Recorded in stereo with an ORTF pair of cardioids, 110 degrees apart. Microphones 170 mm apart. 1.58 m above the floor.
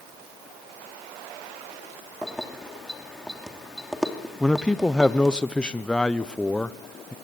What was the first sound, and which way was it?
Keys jangling, straight ahead.